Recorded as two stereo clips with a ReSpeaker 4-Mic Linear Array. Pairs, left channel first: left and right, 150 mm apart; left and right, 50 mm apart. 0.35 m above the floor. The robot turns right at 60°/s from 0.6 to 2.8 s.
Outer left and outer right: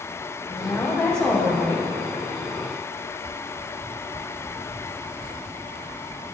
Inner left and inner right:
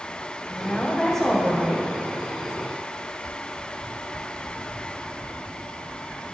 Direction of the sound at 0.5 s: 140° left.